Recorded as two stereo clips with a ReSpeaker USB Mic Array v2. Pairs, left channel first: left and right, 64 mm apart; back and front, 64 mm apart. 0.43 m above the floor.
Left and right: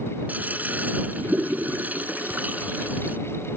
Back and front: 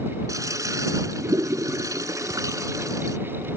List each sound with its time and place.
0.3 s a toilet flushing: 25° right